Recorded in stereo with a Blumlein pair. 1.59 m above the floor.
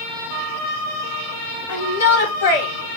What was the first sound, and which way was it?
A shout, 60° left.